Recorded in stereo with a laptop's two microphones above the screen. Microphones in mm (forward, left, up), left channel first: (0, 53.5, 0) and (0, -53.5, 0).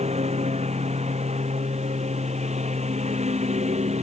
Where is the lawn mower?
80° right; by 4.0 s 85° right.